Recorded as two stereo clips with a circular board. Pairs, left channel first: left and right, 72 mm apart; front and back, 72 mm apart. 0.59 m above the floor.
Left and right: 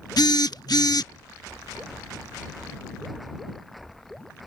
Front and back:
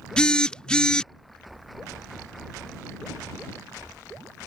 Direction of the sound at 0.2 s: 75° left.